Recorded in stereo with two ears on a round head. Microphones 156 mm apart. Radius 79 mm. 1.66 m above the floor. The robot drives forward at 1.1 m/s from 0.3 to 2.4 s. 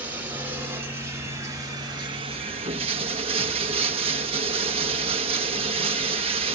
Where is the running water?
10° right (ahead or behind), 3 m; by 6.5 s 35° right (ahead or behind), 1.2 m.